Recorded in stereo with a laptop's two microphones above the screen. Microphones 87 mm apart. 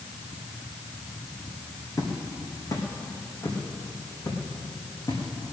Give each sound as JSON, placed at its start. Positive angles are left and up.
{"t": 2.0, "sound": "footsteps", "side_deg": 35, "distance_m": 4.0}